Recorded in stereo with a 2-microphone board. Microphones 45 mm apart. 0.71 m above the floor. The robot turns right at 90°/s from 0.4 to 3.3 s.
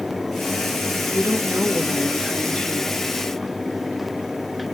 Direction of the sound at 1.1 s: 110° right.